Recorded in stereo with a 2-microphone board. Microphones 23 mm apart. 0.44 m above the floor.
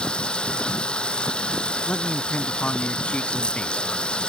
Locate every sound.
0.0 s running water: 50° left (ahead or behind)
1.9 s a man speaking: 65° left (ahead or behind)